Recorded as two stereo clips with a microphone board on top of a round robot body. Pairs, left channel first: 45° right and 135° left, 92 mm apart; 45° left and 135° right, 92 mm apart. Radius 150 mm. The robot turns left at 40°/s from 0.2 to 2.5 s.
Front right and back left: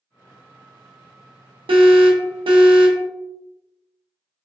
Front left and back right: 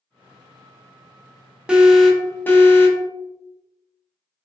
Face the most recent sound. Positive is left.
turn(degrees=115)